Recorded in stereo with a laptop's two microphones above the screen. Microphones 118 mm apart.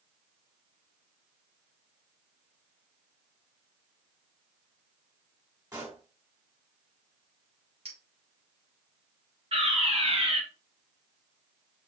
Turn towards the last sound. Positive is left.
turn(degrees=-55)  # may be behind; listen again after turning